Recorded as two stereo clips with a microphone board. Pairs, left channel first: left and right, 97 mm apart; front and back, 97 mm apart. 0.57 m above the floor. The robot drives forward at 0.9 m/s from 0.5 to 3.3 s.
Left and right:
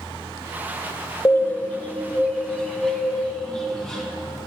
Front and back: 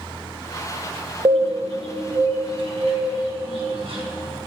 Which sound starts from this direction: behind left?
A bird, at 1.2 s.